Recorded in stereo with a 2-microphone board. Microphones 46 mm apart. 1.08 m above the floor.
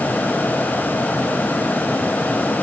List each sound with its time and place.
Only background noise.